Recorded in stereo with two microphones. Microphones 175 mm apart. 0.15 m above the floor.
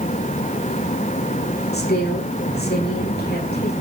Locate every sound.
1.7 s a woman speaking: 70° left (ahead or behind), 8 m